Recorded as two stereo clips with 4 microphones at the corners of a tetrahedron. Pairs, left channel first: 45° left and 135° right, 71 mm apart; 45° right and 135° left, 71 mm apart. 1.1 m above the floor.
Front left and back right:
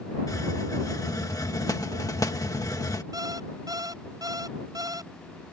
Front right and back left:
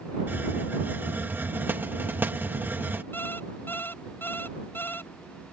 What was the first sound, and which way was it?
A hiss, 75° left.